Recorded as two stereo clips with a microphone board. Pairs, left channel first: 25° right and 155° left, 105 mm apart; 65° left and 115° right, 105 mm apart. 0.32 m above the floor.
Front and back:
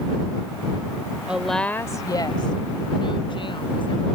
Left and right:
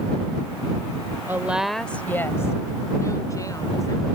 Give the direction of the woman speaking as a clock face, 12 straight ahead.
5 o'clock.